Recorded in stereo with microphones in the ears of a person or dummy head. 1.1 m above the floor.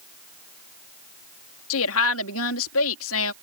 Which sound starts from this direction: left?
A woman speaking, at 1.7 s.